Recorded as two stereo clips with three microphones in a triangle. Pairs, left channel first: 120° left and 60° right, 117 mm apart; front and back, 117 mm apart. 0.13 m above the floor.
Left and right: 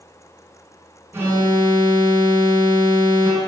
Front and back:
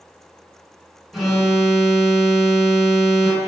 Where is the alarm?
95° right, 0.8 m.